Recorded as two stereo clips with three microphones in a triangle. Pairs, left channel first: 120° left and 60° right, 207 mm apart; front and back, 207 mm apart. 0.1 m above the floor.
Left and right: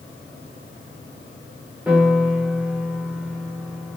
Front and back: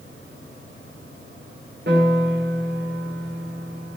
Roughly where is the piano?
Behind right.